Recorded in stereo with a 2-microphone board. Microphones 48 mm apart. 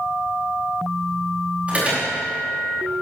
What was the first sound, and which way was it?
An alarm, 30° right (ahead or behind).